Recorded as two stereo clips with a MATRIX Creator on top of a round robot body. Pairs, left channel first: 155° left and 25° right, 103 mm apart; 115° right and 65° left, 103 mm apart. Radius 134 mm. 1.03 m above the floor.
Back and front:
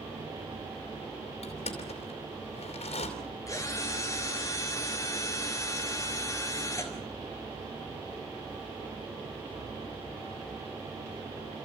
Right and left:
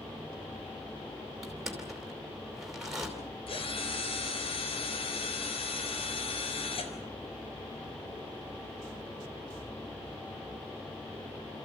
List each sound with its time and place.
1.4 s crushing: 155° left, 4 m
3.5 s a drill: 145° right, 3.5 m